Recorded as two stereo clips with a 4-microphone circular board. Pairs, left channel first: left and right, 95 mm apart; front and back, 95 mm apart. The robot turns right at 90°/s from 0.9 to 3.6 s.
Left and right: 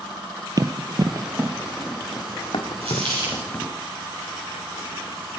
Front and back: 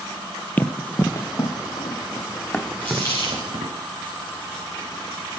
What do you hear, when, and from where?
0.6 s running footsteps: 65° right, 1.0 m; by 3.7 s 160° left, 2.5 m
2.8 s a dropped coin: 80° right, 6 m; by 3.5 s 15° right, 6 m